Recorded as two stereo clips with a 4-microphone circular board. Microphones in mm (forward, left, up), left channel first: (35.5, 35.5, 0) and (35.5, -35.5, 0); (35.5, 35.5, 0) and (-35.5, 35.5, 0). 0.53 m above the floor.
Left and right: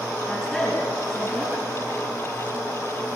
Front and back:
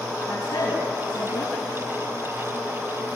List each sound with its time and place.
0.3 s a woman speaking: 10° left, 6 m